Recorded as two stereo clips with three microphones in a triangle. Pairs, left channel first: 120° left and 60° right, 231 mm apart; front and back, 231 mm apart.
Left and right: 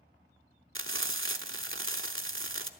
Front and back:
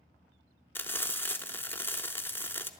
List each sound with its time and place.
0.8 s frying: 80° right, 0.7 m